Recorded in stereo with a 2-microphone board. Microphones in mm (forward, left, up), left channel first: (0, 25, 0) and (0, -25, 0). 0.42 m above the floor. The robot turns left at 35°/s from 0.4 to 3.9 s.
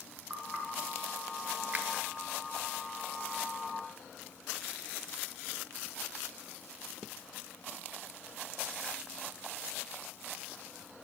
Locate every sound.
0.3 s knocking: 30° right (ahead or behind), 4 m; by 0.7 s 20° right (ahead or behind), 4 m
1.7 s a finger snap: 30° right (ahead or behind), 1.1 m; by 1.9 s 25° right (ahead or behind), 1.1 m